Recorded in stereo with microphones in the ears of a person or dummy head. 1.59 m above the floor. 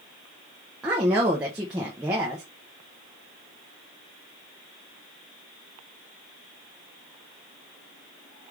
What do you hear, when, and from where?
0.8 s a woman speaking: 10° right (ahead or behind), 0.5 m